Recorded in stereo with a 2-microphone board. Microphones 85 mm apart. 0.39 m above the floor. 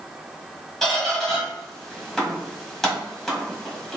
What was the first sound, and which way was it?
A squeak, 5° left (ahead or behind).